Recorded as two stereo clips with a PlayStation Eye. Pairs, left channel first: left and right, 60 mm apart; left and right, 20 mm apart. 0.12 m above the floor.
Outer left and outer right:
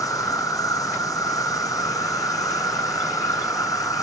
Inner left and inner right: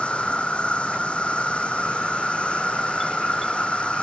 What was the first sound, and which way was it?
An insect, 80° left.